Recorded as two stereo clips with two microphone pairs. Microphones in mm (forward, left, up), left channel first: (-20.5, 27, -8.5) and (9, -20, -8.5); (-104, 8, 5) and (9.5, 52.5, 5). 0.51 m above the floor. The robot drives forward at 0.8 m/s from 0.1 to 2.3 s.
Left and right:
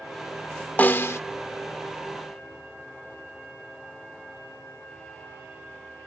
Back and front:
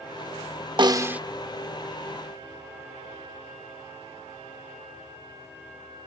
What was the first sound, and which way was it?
A snare drum, 70° left.